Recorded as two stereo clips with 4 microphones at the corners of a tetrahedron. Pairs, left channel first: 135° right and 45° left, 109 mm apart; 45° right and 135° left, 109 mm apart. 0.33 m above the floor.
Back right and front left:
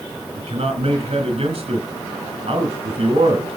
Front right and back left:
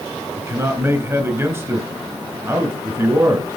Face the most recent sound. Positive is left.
turn(degrees=70)